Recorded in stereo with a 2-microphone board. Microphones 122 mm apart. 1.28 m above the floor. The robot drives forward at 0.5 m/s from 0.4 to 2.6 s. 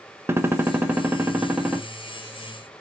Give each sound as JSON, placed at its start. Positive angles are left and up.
{"t": 0.3, "sound": "a gunshot", "side_deg": -20, "distance_m": 0.6}